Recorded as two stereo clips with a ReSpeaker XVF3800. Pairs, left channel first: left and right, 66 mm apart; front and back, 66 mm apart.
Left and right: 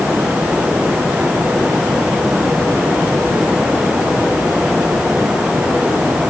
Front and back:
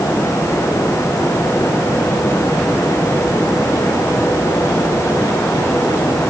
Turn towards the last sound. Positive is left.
No sound to turn to.